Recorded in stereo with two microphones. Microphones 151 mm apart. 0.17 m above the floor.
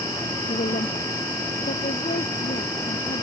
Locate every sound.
0.5 s a woman speaking: 70° left (ahead or behind)